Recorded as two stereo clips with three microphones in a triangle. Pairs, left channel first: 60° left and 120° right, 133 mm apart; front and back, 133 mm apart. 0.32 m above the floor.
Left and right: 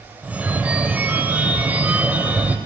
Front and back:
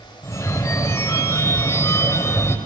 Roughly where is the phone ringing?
Ahead right.